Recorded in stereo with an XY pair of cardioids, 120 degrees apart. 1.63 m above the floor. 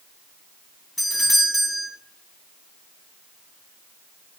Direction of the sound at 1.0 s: 5° left.